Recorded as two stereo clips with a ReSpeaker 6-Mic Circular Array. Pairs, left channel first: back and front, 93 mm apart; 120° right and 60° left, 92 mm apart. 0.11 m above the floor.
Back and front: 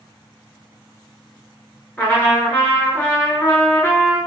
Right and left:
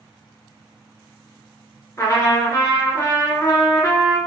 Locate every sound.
2.0 s a trumpet: 120° right, 0.9 m